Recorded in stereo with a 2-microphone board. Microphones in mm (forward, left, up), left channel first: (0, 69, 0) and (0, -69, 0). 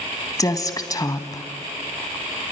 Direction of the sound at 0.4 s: 25° left (ahead or behind).